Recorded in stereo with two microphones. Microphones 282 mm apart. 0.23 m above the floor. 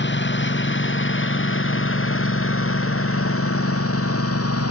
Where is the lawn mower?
40° left (ahead or behind); by 4.7 s 55° left (ahead or behind).